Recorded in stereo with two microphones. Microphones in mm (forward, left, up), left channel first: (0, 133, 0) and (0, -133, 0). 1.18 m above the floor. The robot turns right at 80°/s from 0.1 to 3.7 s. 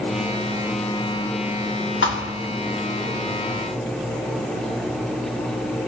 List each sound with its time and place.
2.0 s a thud: 45° left (ahead or behind), 1.0 m; by 2.4 s 50° left (ahead or behind), 1.0 m